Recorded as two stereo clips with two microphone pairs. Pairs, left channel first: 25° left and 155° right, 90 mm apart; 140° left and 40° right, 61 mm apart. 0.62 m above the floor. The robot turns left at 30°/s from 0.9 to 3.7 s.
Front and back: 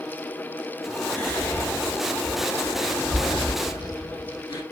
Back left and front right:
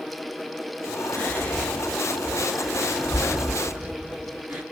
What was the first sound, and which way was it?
Whispering, 90° left.